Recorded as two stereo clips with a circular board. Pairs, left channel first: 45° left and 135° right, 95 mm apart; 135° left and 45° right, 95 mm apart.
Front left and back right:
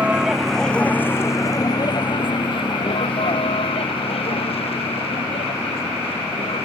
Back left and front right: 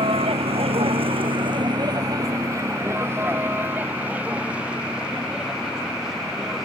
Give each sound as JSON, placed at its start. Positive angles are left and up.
{"t": 0.0, "sound": "a vehicle", "azimuth_deg": -55}